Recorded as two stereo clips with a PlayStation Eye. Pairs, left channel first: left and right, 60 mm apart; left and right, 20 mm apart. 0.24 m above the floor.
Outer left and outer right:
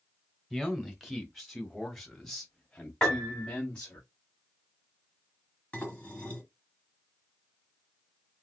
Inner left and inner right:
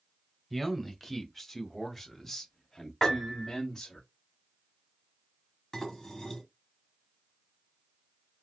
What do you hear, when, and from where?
0.5 s a man speaking: 5° right (ahead or behind), 1.3 m; by 4.0 s 15° left (ahead or behind), 1.3 m
3.0 s a piano: 10° left (ahead or behind), 1.7 m
5.7 s dishes clattering: 25° left (ahead or behind), 1.5 m